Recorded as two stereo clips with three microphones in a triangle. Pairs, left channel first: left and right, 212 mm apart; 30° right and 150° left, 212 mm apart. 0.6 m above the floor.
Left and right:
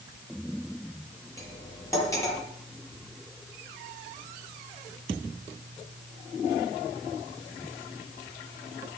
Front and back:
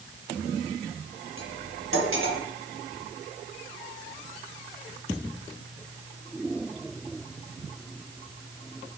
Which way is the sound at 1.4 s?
165° left.